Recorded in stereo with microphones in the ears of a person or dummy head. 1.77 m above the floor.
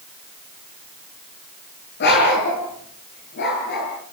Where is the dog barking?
50° left (ahead or behind), 7 m.